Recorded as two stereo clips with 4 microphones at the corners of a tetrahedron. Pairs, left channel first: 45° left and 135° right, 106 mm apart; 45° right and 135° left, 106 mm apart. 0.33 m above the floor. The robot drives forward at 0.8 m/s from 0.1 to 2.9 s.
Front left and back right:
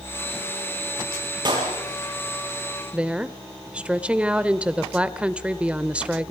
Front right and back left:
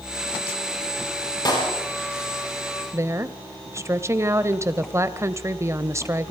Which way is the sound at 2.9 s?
155° left.